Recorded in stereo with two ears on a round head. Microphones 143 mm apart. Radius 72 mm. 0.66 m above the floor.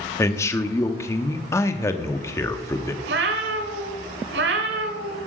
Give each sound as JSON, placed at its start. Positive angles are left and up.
{"t": 0.2, "sound": "a man speaking", "side_deg": 15, "distance_m": 0.8}
{"t": 3.0, "sound": "a cat meowing", "side_deg": -75, "distance_m": 1.5}